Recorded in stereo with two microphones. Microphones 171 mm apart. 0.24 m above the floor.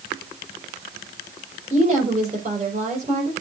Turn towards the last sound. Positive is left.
turn(degrees=-40)  # may be behind; listen again after turning